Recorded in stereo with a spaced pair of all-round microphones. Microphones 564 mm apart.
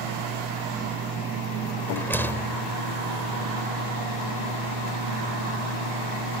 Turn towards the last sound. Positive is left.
turn(degrees=5)  # may be behind; listen again after turning